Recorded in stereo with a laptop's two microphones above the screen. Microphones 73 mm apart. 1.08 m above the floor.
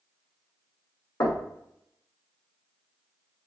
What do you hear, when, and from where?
1.2 s knocking: 50° left (ahead or behind), 0.6 m